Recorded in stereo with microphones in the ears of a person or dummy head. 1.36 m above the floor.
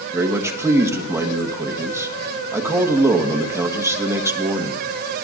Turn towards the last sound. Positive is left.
turn(degrees=-10)  # may be behind; listen again after turning